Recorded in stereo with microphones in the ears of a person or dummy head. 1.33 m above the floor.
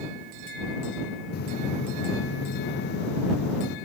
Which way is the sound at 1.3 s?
65° left (ahead or behind).